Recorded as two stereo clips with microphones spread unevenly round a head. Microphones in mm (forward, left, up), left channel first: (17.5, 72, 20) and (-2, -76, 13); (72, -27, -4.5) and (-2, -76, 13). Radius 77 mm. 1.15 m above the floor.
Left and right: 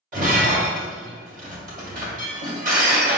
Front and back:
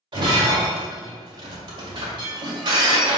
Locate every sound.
0.1 s breaking glass: 135° right, 1.8 m